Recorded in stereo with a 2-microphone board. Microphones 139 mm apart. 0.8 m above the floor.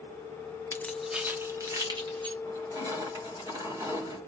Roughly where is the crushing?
Right.